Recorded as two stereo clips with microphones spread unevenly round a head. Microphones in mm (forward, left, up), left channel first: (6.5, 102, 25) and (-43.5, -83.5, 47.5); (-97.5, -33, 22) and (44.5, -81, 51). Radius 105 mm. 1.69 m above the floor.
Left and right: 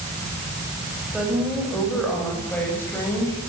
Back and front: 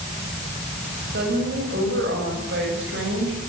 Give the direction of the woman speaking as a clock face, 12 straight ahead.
1 o'clock.